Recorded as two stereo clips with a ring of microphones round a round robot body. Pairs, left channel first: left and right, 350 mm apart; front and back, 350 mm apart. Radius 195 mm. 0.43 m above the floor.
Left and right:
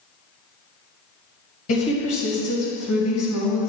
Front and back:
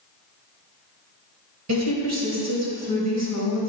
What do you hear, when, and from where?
1.7 s a woman speaking: 140° left, 2.5 m